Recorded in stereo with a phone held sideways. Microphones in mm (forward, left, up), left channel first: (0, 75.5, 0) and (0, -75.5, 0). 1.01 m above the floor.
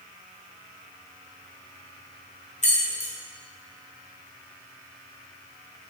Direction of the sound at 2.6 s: 50° left (ahead or behind).